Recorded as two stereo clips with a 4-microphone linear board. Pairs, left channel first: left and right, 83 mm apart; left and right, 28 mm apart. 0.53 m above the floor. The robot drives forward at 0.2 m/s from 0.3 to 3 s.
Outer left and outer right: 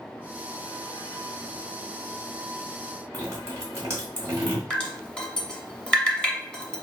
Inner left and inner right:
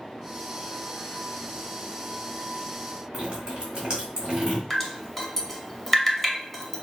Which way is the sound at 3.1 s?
35° right (ahead or behind).